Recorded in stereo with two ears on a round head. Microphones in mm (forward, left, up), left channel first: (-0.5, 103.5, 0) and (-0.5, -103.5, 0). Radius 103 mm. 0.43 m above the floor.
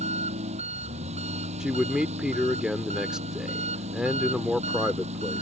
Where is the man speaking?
5° right (ahead or behind).